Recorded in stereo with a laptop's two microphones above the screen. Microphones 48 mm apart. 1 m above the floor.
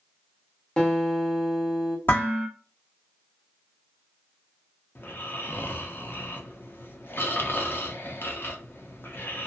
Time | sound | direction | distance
0.8 | a guitar | 20° left (ahead or behind) | 0.8 m
2.1 | dishes clattering | 45° left (ahead or behind) | 1.3 m
5.0 | snoring | 50° left (ahead or behind) | 0.5 m